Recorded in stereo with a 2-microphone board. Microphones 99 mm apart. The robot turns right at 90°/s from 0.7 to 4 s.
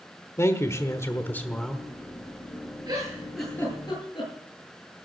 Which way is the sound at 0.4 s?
80° left.